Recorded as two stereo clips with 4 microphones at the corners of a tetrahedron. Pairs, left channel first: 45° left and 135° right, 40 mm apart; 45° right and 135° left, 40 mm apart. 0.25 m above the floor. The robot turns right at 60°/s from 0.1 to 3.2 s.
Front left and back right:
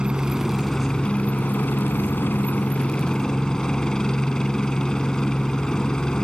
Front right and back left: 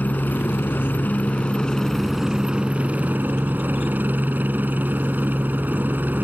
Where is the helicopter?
70° right; by 6.2 s 115° left.